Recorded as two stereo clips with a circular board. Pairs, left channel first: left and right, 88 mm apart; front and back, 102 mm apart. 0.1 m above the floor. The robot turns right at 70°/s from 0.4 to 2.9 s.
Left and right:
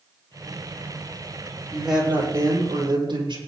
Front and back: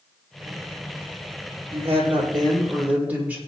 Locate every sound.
1.7 s a woman speaking: 170° left, 5.5 m; by 3.4 s 105° right, 5.5 m